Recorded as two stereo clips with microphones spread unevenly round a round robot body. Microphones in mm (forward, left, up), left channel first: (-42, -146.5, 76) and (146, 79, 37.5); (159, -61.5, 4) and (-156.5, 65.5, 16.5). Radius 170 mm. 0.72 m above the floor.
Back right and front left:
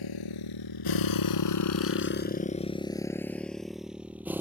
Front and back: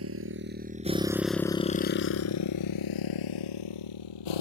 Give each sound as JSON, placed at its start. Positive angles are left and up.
{"t": 0.0, "sound": "a motorcycle", "azimuth_deg": -150}